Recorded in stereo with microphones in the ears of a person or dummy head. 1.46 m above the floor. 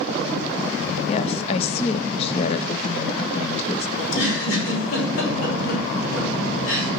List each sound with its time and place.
1.1 s a woman speaking: 35° left (ahead or behind), 0.8 m
4.0 s a giggle: 80° left, 3 m